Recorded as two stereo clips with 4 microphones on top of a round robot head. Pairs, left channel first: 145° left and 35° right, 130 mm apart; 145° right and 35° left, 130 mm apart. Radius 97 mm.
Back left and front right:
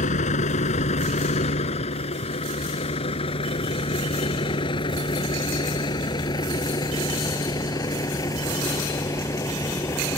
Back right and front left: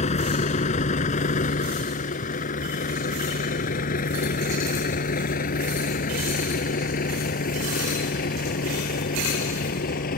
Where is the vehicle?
175° left; by 10.2 s 145° right.